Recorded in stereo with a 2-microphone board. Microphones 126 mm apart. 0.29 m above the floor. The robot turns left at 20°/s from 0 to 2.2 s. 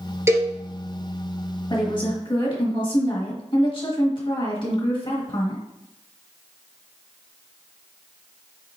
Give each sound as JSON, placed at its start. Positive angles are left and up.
{"t": 0.3, "sound": "a cowbell", "side_deg": -20, "distance_m": 0.9}
{"t": 1.7, "sound": "a woman speaking", "side_deg": 40, "distance_m": 1.3}